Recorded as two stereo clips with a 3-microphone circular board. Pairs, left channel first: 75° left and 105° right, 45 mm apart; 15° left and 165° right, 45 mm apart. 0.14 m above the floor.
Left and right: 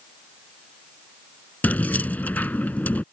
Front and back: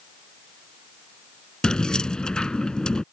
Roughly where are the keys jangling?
Left.